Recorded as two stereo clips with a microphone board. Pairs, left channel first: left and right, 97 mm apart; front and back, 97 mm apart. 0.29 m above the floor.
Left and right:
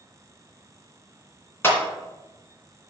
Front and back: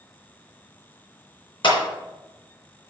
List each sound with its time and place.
1.6 s a clap: 25° left, 2.5 m